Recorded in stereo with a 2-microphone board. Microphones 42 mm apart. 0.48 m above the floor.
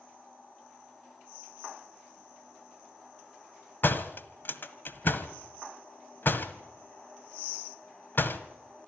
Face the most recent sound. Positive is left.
turn(degrees=55)  # may be behind; listen again after turning